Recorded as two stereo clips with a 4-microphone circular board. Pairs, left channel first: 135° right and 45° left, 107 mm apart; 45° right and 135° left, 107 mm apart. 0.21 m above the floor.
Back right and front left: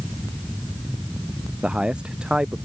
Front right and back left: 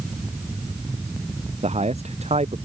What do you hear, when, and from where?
1.6 s a man speaking: 130° left